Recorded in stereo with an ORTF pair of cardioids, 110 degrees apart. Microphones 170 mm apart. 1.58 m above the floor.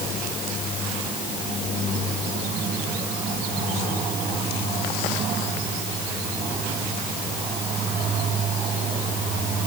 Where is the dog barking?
No dog barking in this recording.